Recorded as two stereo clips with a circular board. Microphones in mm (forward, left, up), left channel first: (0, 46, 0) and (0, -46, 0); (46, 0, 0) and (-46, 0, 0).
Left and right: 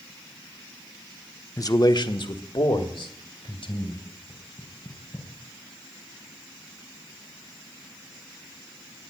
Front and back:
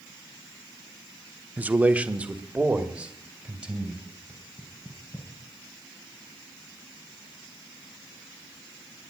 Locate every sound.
1.6 s a man speaking: 115° left, 0.7 m; by 4.1 s 100° left, 3 m
4.3 s knocking: 65° left, 2.5 m